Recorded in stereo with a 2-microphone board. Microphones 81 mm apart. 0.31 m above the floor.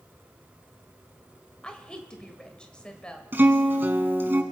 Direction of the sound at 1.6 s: 10° left (ahead or behind).